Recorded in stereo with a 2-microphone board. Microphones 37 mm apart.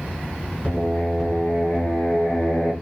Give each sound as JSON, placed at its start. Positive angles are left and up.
{"t": 0.6, "sound": "singing", "side_deg": 35, "distance_m": 3.5}